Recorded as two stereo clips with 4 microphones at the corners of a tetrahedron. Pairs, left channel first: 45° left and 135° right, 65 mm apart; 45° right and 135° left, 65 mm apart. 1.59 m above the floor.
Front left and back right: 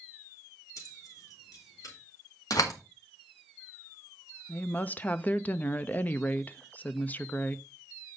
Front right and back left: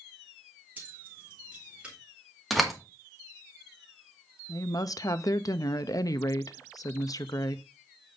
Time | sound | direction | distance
0.8 | keys jangling | 70° left | 2.5 m
2.5 | a door slam | 45° left | 1.8 m
4.5 | a woman speaking | 20° right | 0.7 m